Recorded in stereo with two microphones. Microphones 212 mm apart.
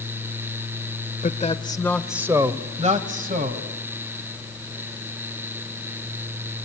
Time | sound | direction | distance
1.2 | a man speaking | 40° left (ahead or behind) | 1.1 m